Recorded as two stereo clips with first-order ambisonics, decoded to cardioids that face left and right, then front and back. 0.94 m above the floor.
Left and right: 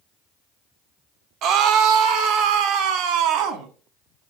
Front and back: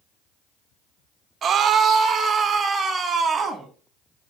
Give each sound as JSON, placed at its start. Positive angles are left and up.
{"t": 1.4, "sound": "a scream", "azimuth_deg": -120, "distance_m": 1.0}